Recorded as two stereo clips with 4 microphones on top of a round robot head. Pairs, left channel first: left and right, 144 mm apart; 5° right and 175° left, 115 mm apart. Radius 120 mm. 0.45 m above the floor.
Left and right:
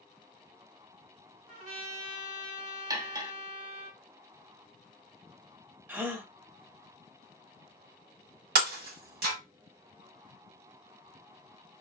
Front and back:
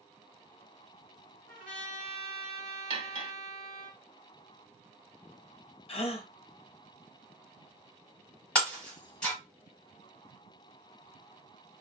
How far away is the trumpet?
About 2 m.